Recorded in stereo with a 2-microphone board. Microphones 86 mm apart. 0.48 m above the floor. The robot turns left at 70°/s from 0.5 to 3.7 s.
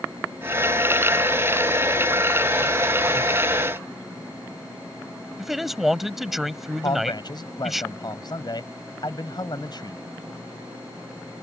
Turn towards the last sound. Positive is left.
turn(degrees=60)  # may be behind; listen again after turning